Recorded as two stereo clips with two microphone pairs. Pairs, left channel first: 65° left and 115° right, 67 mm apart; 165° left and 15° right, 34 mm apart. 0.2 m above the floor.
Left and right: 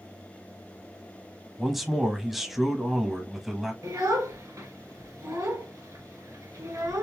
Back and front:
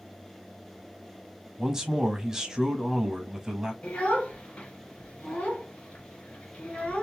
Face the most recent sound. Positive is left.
turn(degrees=-150)